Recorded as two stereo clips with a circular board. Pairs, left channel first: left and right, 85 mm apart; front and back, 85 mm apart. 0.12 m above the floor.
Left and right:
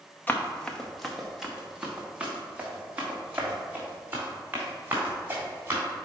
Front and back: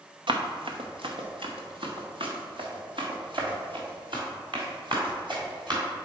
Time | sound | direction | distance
0.3 | running footsteps | 160° left | 1.1 m